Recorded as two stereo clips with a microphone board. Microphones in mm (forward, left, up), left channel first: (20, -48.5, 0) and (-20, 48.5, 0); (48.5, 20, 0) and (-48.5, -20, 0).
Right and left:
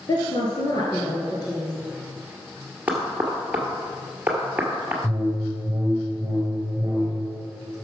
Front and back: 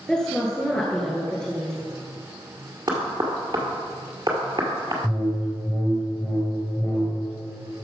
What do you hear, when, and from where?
0.1 s a woman speaking: 55° right, 1.6 m
2.9 s knocking: 175° right, 1.8 m
5.0 s a whoosh: 70° left, 1.7 m